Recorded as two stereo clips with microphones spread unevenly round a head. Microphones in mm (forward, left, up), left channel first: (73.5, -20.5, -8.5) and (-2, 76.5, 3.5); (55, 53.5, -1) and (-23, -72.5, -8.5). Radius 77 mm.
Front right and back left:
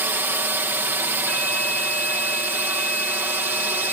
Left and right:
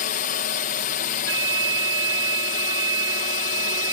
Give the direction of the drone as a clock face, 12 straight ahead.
10 o'clock.